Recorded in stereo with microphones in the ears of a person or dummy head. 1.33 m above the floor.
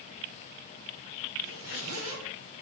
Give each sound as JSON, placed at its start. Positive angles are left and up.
{"t": 1.4, "sound": "a zipper", "side_deg": -80, "distance_m": 1.9}